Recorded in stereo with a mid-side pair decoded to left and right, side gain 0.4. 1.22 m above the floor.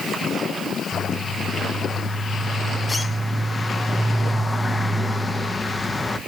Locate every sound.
0.9 s a bird: 25° left, 1.0 m